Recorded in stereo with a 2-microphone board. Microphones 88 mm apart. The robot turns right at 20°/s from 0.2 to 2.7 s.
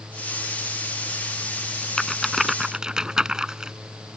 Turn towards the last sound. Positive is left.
turn(degrees=-10)  # may be behind; listen again after turning